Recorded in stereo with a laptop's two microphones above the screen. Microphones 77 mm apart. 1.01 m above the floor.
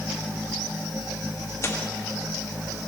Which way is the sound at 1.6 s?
40° left (ahead or behind).